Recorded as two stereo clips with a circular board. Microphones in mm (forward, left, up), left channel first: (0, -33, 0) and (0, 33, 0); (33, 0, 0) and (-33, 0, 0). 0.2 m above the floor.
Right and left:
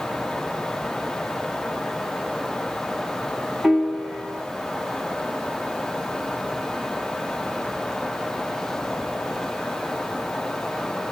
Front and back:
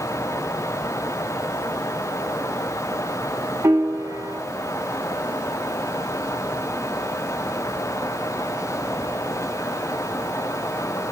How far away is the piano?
About 0.6 m.